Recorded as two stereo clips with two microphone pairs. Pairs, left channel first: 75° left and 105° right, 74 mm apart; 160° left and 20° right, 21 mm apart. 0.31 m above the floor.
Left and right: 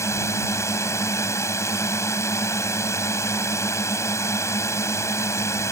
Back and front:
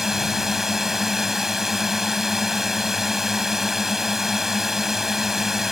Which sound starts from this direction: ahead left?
A drone, at 0.0 s.